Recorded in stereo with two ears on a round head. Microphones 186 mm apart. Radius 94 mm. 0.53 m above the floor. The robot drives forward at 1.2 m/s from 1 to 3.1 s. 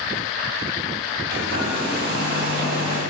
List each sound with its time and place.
1.3 s a hair dryer: 75° right (ahead or behind), 4.5 m; by 3.0 s 60° right (ahead or behind), 5 m